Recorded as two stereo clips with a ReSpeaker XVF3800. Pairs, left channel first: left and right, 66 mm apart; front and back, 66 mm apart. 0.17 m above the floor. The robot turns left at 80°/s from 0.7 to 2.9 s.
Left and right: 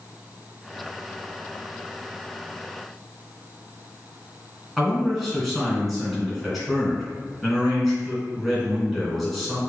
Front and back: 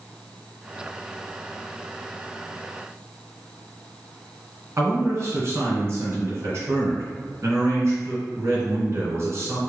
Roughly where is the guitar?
I don't hear a guitar.